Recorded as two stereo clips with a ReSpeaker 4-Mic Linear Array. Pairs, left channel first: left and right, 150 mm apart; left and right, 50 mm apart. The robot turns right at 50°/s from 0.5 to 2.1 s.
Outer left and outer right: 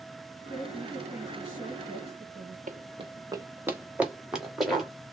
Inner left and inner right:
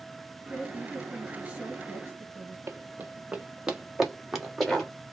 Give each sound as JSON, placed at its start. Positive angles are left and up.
{"t": 0.5, "sound": "a woman speaking", "azimuth_deg": 145, "distance_m": 1.8}
{"t": 2.7, "sound": "running footsteps", "side_deg": -60, "distance_m": 0.6}